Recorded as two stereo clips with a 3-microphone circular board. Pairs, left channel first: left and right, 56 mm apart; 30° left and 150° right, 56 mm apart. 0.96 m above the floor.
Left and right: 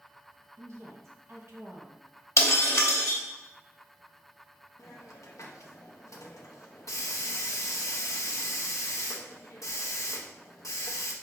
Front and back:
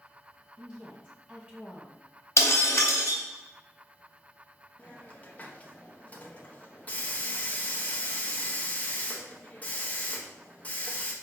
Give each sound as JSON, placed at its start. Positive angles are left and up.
{"t": 0.6, "sound": "a woman speaking", "azimuth_deg": -85, "distance_m": 1.3}
{"t": 2.4, "sound": "breaking glass", "azimuth_deg": 60, "distance_m": 1.4}
{"t": 4.8, "sound": "a hiss", "azimuth_deg": 90, "distance_m": 0.8}